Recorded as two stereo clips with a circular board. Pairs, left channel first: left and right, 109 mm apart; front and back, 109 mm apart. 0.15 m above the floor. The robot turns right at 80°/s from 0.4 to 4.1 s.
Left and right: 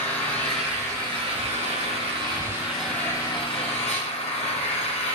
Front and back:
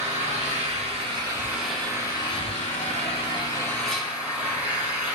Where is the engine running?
165° left, 2.5 m; by 5.2 s 105° left, 2.5 m.